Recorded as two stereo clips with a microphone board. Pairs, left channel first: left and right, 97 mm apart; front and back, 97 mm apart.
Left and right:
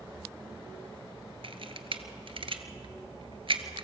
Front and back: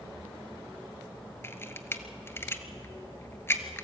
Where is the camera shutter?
65° right, 1.2 m.